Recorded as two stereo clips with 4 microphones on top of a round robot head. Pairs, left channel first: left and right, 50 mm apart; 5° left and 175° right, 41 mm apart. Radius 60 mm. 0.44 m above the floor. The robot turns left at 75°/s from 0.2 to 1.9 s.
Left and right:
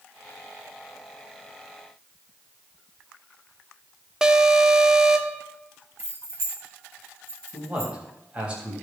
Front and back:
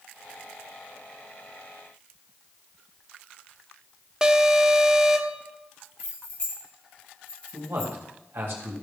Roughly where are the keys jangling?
Ahead right.